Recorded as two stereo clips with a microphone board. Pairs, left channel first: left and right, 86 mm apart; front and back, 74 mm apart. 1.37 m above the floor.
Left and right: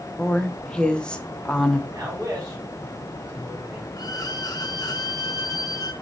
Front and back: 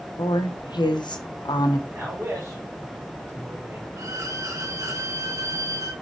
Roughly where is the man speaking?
Behind right.